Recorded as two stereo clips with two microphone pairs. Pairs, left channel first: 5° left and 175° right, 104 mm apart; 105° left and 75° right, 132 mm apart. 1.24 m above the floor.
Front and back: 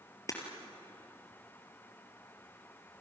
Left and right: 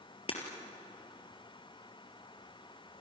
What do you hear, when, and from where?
0.3 s breaking glass: 65° left, 4 m